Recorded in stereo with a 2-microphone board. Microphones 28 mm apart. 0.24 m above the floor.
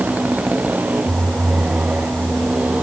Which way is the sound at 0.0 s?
65° right (ahead or behind).